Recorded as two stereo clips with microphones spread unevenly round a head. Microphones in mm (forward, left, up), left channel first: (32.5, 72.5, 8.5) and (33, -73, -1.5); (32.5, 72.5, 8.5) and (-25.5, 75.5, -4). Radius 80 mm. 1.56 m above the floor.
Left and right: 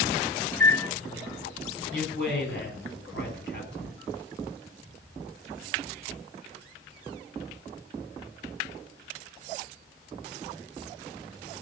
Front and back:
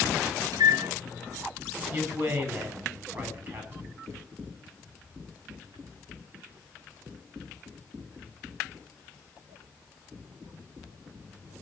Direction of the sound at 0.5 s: 165° left.